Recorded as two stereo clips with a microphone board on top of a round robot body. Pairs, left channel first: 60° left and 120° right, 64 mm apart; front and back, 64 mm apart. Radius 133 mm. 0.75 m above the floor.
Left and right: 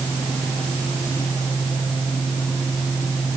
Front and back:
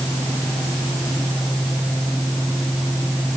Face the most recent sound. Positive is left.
No sound to turn to.